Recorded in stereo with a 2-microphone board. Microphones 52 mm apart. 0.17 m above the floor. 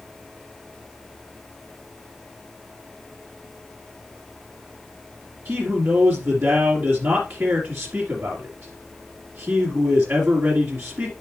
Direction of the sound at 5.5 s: 40° right (ahead or behind).